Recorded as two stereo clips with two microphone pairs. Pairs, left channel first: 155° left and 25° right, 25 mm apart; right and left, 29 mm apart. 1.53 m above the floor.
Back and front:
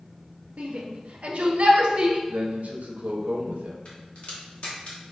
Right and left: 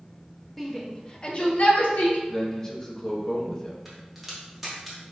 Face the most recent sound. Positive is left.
turn(degrees=180)